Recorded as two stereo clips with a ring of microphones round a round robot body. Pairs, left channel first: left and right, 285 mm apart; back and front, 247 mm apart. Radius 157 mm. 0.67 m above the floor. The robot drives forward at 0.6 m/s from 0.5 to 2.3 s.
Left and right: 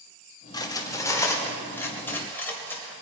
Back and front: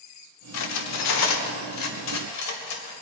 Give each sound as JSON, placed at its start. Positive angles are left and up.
{"t": 0.5, "sound": "cutlery clinking", "azimuth_deg": 165, "distance_m": 1.2}